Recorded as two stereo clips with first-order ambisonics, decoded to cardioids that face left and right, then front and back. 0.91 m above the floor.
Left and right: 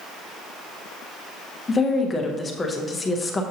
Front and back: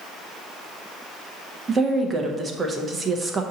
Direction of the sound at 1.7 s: 135° left.